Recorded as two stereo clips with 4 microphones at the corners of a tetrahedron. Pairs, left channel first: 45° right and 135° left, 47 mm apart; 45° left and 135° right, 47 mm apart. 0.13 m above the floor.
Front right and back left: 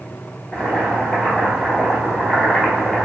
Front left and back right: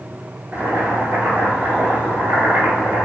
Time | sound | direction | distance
0.5 | boiling | 120° right | 1.0 m